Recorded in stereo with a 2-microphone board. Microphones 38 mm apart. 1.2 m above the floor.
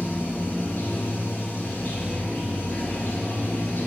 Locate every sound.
0.0 s running water: 65° left (ahead or behind), 1.3 m